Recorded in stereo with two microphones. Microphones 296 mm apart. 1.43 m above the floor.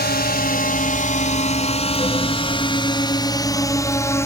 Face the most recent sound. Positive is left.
turn(degrees=10)  # may be behind; listen again after turning